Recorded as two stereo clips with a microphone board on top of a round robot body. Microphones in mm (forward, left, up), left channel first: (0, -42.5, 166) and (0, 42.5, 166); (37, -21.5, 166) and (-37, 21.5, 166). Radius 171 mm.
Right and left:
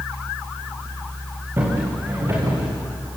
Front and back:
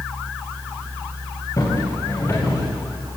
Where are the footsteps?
25° left, 8 m; by 2.6 s 35° left, 8 m.